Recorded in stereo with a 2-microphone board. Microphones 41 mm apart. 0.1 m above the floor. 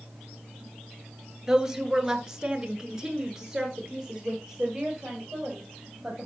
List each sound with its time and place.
1.5 s a woman speaking: 10° right (ahead or behind), 1.3 m; by 6.2 s 5° right (ahead or behind), 3 m